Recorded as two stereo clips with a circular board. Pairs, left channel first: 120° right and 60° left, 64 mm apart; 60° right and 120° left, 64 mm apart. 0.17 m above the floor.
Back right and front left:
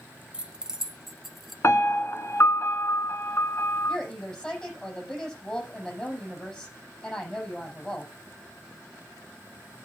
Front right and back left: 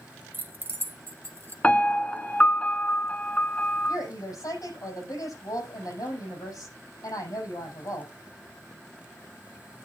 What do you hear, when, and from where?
0.3 s keys jangling: 115° left, 0.9 m; by 1.5 s 150° left, 1.3 m
1.6 s a piano: 120° right, 1.2 m
3.9 s a woman speaking: 45° right, 6.5 m